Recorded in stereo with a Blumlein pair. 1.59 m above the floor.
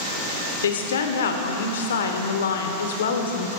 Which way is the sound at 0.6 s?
65° left.